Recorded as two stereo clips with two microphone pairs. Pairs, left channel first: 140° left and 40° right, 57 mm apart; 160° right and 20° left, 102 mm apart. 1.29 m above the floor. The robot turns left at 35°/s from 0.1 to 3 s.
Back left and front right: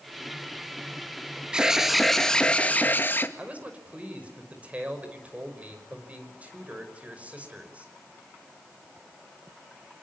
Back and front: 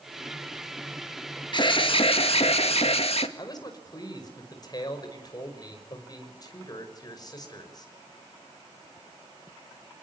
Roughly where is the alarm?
Behind right.